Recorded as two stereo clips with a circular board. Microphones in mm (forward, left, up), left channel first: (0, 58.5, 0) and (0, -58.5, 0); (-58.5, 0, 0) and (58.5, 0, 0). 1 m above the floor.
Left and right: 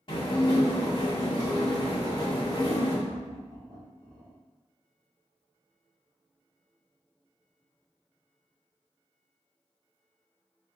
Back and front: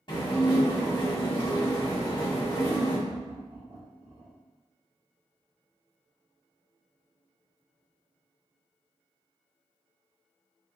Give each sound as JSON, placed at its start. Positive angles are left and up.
{"t": 0.1, "sound": "dishes clattering", "azimuth_deg": 135, "distance_m": 1.7}
{"t": 3.1, "sound": "laughter", "azimuth_deg": -40, "distance_m": 2.0}